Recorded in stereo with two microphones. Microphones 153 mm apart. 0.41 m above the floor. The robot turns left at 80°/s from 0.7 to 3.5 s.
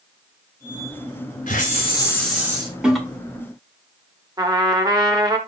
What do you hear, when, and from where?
1.5 s a hiss: 70° left, 3 m; by 2.7 s 35° right, 3 m
2.8 s a toilet flushing: 5° right (ahead or behind), 1.5 m; by 3.0 s centre (ahead or behind), 1.5 m
4.4 s a trumpet: 25° right (ahead or behind), 1.3 m